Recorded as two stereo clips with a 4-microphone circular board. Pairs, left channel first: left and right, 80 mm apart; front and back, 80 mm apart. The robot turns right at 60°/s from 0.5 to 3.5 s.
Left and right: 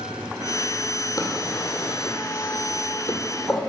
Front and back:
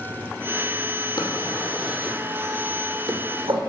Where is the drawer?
45° left, 2 m; by 3.6 s 175° right, 2 m.